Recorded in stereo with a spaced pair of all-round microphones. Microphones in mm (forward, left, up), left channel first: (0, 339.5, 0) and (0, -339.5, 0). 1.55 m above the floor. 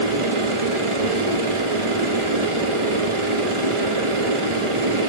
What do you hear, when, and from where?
0.0 s a machine running: 45° right (ahead or behind), 1.2 m